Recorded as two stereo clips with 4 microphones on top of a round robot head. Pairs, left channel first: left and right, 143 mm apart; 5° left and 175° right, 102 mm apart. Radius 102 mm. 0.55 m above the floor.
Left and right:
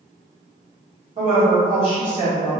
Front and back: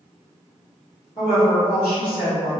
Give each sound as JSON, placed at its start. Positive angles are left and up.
{"t": 1.2, "sound": "a woman speaking", "azimuth_deg": -45, "distance_m": 1.5}